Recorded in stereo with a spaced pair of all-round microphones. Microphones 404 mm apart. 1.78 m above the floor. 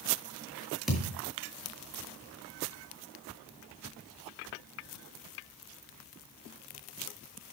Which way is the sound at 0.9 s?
Centre (ahead or behind).